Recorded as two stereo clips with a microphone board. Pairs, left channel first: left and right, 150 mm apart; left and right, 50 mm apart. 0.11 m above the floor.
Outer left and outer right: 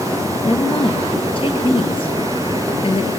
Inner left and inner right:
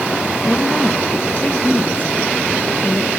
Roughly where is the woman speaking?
Left.